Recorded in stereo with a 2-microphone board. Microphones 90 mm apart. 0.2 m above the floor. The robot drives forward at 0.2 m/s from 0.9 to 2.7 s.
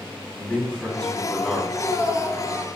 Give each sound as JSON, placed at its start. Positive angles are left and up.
{"t": 0.3, "sound": "a man speaking", "side_deg": 15, "distance_m": 1.0}
{"t": 1.7, "sound": "a man speaking", "side_deg": -35, "distance_m": 1.4}